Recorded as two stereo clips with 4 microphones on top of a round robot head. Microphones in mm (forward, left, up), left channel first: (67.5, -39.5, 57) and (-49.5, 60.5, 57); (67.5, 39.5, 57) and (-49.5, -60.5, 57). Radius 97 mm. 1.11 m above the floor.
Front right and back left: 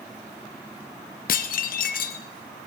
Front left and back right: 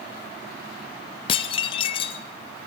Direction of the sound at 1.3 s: 10° right.